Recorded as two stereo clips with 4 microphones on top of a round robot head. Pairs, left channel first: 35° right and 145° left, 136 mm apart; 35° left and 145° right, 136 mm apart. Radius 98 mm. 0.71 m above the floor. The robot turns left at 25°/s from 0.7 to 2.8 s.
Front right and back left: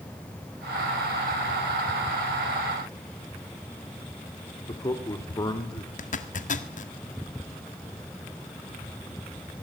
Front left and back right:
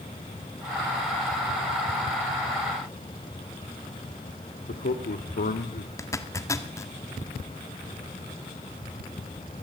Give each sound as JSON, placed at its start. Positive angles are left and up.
{"t": 4.7, "sound": "a man speaking", "azimuth_deg": 25, "distance_m": 2.0}
{"t": 6.0, "sound": "a zipper", "azimuth_deg": -30, "distance_m": 1.9}